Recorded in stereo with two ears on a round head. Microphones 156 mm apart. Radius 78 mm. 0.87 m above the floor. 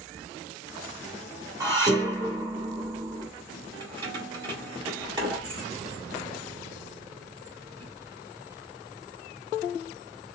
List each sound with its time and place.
1.6 s dishes clattering: 20° right (ahead or behind), 1.7 m
3.8 s keys jangling: 25° right (ahead or behind), 2.5 m